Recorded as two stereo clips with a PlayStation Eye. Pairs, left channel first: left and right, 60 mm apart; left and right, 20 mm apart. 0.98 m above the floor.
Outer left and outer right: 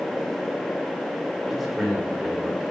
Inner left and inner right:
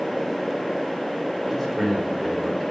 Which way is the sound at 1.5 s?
Centre (ahead or behind).